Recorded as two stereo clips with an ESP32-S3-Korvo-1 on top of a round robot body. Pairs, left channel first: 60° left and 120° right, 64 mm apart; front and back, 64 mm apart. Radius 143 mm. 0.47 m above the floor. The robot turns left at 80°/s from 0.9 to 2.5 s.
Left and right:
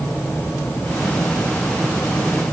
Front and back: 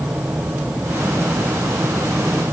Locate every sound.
Only background noise.